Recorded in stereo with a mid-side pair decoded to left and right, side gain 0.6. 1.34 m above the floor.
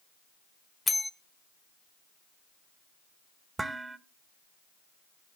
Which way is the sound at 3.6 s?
10° right.